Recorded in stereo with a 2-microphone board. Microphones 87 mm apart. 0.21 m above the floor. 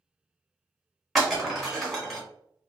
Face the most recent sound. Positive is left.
turn(degrees=0)  # may be behind; listen again after turning